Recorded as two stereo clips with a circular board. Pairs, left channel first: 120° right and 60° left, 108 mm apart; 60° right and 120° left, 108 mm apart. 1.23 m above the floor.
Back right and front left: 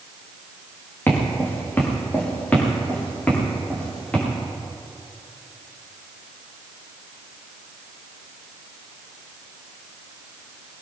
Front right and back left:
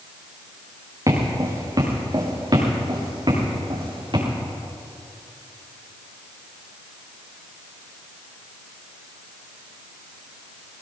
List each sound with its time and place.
1.1 s footsteps: 170° left, 5 m; by 4.2 s 160° left, 8 m